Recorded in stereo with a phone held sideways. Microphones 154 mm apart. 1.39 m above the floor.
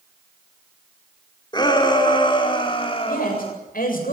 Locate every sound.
1.5 s a shout: 30° left (ahead or behind), 5.5 m; by 3.5 s 40° left (ahead or behind), 4.5 m
3.1 s a man speaking: 75° left (ahead or behind), 7.5 m